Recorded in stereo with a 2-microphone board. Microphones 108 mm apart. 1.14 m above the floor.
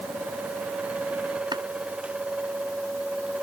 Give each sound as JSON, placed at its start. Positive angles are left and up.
{"t": 1.5, "sound": "chopping", "side_deg": -45}